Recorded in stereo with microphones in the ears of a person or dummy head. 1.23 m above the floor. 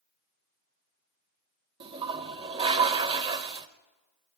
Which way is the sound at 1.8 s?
30° right (ahead or behind).